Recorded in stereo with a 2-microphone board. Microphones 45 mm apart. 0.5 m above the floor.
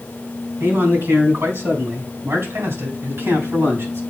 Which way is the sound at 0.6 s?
65° right (ahead or behind).